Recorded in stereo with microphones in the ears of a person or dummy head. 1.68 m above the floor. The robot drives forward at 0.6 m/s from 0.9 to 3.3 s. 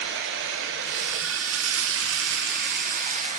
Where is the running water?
65° right (ahead or behind), 1.1 m; by 3.4 s 45° right (ahead or behind), 1.4 m.